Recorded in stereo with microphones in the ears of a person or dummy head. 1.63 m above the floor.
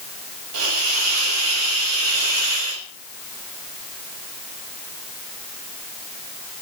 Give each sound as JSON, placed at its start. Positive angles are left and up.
{"t": 0.5, "sound": "a hiss", "side_deg": -80, "distance_m": 6.0}